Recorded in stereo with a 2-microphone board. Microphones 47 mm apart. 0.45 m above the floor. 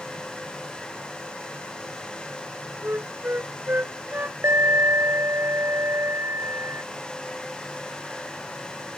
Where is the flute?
45° right (ahead or behind).